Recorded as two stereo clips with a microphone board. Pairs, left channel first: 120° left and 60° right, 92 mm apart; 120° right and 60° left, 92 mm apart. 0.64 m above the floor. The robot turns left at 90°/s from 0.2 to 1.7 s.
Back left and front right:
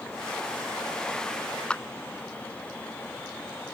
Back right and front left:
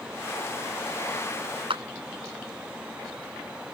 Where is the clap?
40° left.